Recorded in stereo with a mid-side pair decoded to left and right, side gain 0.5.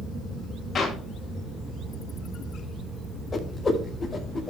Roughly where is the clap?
Ahead left.